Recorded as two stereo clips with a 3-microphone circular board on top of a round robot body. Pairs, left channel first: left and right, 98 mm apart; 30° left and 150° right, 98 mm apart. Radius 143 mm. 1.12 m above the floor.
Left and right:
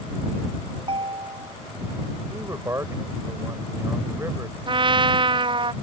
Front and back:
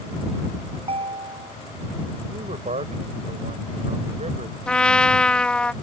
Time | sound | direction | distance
0.8 | a ringtone | 125° right | ?
2.3 | a man speaking | 150° right | ?
4.7 | a trumpet | 50° right | ?